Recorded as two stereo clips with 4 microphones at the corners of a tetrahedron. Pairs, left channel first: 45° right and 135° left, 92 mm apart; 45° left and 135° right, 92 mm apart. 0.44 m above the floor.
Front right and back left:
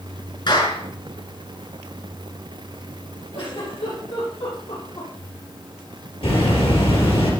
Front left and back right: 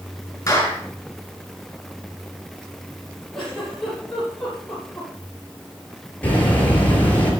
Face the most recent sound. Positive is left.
turn(degrees=-30)